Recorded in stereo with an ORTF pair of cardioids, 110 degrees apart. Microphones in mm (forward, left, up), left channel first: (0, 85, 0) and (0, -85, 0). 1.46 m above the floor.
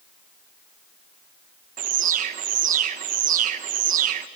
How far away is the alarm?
About 1.3 m.